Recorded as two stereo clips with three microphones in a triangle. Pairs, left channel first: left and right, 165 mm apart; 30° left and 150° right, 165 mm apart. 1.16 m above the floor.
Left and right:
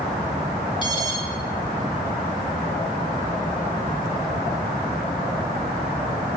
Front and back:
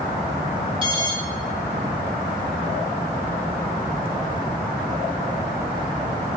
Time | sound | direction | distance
0.8 | an alarm | 150° left | 4.5 m